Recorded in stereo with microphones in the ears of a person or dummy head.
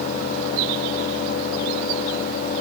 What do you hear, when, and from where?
Only background noise.